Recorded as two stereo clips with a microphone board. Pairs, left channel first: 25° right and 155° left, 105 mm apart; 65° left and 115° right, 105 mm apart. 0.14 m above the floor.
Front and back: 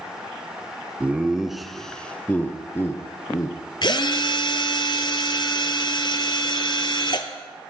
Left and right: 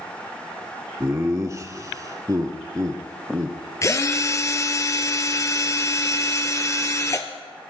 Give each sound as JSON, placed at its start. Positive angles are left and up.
{"t": 1.0, "sound": "laughter", "azimuth_deg": -140, "distance_m": 1.2}
{"t": 3.8, "sound": "a drill", "azimuth_deg": 10, "distance_m": 1.1}